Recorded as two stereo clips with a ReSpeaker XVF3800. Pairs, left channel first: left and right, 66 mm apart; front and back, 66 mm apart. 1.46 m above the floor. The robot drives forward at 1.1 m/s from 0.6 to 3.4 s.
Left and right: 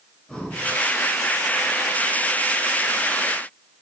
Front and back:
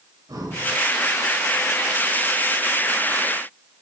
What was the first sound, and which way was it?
Breathing, 165° left.